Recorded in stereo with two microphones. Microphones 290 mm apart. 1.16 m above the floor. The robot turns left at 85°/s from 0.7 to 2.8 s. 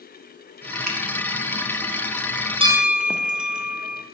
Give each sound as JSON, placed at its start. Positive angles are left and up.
{"t": 0.9, "sound": "a finger snap", "side_deg": -65, "distance_m": 0.8}
{"t": 2.6, "sound": "a bell", "side_deg": -20, "distance_m": 0.6}